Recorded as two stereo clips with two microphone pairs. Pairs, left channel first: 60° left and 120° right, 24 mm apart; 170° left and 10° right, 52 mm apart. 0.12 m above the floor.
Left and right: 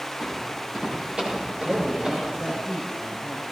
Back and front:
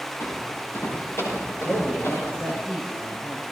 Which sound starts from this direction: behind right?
A man speaking, at 1.6 s.